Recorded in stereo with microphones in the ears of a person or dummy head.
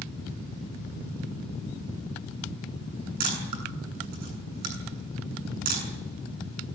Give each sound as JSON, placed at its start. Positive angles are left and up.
{"t": 3.2, "sound": "a camera shutter", "side_deg": -60, "distance_m": 7.5}